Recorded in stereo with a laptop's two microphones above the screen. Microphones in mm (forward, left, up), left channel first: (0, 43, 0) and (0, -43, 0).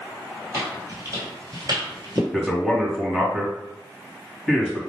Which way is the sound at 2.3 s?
15° right (ahead or behind).